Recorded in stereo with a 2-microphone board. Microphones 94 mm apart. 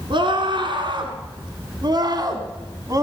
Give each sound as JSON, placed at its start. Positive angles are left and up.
{"t": 0.1, "sound": "a scream", "side_deg": -60, "distance_m": 3.0}